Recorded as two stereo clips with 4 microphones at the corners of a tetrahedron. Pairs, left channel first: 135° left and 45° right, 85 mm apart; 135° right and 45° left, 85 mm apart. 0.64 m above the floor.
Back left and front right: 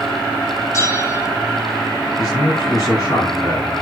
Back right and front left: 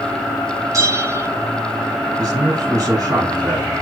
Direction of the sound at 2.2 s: 90° left.